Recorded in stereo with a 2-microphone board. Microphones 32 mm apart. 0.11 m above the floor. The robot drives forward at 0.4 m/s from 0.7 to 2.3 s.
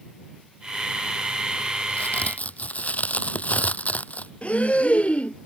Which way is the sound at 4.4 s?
50° left (ahead or behind).